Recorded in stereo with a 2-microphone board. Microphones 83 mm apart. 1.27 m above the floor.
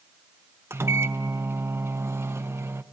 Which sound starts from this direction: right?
A microwave, at 0.7 s.